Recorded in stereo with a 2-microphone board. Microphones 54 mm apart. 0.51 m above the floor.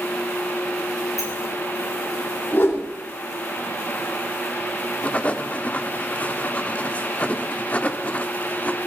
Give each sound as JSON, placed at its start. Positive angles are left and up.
{"t": 1.2, "sound": "a sliding door", "side_deg": 75, "distance_m": 6.5}
{"t": 2.5, "sound": "a whoosh", "side_deg": 40, "distance_m": 8.0}
{"t": 5.0, "sound": "writing", "side_deg": 25, "distance_m": 1.2}